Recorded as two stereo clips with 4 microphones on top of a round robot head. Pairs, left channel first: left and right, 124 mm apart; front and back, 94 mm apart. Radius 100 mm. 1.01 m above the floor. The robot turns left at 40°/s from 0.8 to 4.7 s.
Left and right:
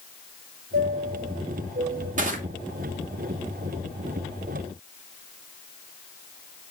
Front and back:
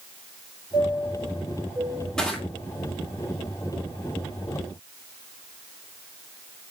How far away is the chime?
About 4 m.